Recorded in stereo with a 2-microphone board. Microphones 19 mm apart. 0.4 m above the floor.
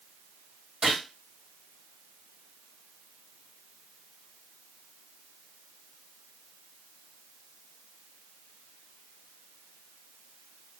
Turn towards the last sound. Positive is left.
turn(degrees=-60)  # may be behind; listen again after turning